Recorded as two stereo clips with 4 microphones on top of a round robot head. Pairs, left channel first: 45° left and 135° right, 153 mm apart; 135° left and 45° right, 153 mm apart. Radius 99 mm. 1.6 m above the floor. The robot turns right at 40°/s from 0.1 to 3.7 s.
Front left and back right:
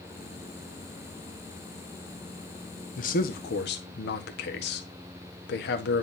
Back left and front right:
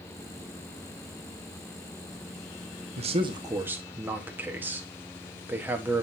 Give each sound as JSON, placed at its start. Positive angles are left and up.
{"t": 3.0, "sound": "a man speaking", "azimuth_deg": 5, "distance_m": 1.3}